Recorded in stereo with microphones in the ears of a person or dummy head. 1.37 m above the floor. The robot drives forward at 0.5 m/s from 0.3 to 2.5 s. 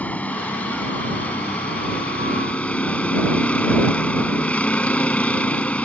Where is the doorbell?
No doorbell in this recording.